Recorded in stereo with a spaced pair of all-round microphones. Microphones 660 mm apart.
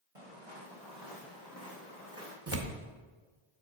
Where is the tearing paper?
20° right (ahead or behind), 0.7 m.